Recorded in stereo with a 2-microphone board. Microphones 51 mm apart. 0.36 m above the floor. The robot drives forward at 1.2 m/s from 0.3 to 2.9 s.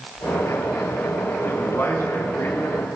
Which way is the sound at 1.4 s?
50° left (ahead or behind).